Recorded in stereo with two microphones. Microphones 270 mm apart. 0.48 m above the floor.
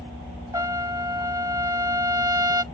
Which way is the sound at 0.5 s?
15° right (ahead or behind).